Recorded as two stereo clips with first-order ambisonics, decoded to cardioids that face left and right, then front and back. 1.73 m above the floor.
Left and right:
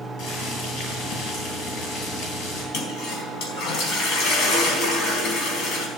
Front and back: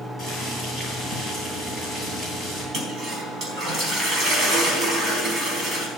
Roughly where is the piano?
No piano in this recording.